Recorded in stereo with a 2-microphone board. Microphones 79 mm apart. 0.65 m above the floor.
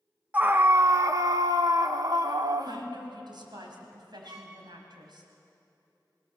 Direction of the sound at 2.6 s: 70° right (ahead or behind).